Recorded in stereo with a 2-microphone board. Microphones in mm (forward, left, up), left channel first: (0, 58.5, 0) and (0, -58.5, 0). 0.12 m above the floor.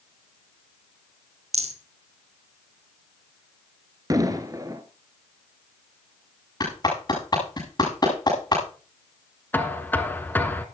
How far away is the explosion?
About 1.3 m.